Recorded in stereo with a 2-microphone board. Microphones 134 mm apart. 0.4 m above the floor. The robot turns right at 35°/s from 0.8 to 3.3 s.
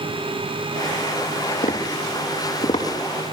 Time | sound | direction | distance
1.6 | tapping | 80° left | 8.5 m